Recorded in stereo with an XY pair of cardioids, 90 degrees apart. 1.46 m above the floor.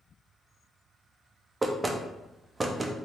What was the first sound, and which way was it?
Knocking, 25° right.